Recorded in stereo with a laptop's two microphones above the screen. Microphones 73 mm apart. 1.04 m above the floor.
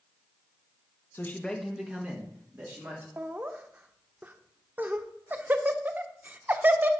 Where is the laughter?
25° right (ahead or behind), 0.7 m.